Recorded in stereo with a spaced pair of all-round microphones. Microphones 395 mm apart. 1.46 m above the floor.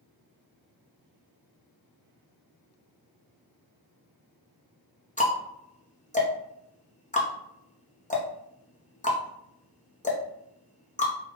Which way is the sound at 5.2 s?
20° left (ahead or behind).